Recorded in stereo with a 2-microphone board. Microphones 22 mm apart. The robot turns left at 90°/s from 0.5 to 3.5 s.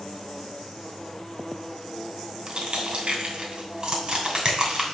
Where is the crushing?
35° right (ahead or behind), 2.5 m; by 4.8 s 40° right (ahead or behind), 2.5 m.